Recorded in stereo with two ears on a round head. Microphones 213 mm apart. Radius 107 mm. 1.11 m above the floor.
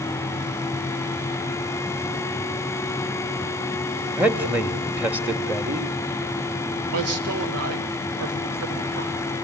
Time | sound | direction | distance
4.1 | a man speaking | 5° right (ahead or behind) | 1.6 m
6.9 | a man speaking | 70° right (ahead or behind) | 3 m